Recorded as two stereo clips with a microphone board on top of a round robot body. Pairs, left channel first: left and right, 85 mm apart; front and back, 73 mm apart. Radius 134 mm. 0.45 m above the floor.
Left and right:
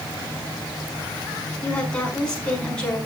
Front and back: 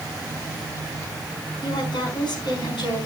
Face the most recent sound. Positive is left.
turn(degrees=10)